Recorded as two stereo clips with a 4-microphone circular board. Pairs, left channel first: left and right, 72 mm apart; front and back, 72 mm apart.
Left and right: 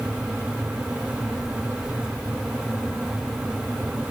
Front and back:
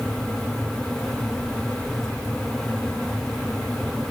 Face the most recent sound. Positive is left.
No sound to turn to.